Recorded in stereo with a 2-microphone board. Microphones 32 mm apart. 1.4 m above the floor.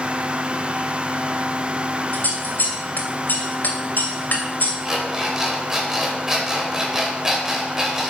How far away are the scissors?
About 2.5 m.